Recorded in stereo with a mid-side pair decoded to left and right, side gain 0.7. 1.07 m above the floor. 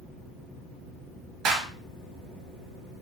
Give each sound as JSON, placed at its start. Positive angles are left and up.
{"t": 1.4, "sound": "a clap", "azimuth_deg": -50, "distance_m": 0.9}